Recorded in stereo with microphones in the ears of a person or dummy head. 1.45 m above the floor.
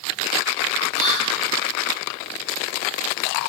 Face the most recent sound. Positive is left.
turn(degrees=80)